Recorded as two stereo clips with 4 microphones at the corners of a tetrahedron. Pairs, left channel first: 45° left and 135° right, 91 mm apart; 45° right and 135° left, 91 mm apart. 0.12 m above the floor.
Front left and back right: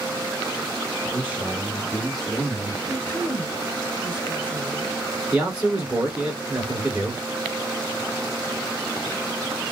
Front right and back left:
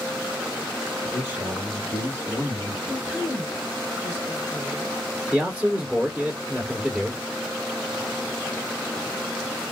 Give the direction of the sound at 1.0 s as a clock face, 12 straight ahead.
6 o'clock.